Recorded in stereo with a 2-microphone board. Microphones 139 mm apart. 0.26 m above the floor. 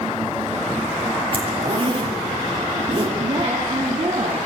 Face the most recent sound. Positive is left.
turn(degrees=-40)  # may be behind; listen again after turning